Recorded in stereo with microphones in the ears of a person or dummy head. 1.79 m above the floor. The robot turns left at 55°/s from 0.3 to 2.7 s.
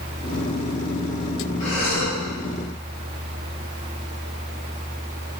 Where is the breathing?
130° left, 1.6 m; by 2.2 s 95° left, 1.6 m.